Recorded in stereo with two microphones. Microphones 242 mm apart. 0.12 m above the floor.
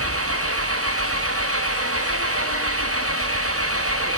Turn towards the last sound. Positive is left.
turn(degrees=-70)  # may be behind; listen again after turning